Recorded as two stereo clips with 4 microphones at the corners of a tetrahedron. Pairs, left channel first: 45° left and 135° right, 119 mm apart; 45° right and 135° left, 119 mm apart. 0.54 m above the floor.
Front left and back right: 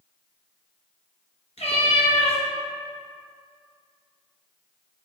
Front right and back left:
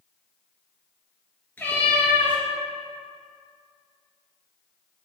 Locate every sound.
1.6 s a cat meowing: 30° left, 1.4 m